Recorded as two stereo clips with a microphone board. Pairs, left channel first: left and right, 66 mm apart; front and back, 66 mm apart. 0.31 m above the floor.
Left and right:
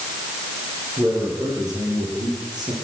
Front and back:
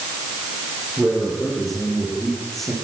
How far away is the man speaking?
About 9.5 m.